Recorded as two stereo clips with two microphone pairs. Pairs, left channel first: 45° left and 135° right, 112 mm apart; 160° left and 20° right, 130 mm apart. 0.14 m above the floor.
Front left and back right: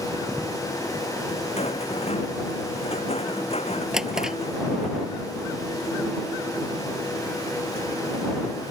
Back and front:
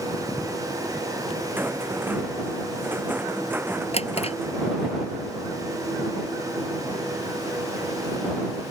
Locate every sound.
1.6 s a rattle: 55° left
3.9 s a drawer: 145° left